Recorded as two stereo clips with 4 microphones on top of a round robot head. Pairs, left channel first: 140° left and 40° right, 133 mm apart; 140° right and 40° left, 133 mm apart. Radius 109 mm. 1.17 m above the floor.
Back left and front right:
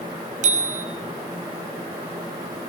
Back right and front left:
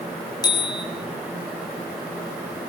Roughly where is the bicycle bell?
Right.